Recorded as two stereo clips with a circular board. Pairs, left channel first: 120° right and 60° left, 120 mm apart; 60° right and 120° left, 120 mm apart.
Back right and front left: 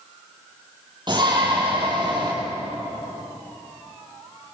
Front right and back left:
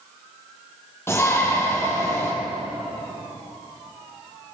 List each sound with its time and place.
1.1 s a shout: 10° left, 7 m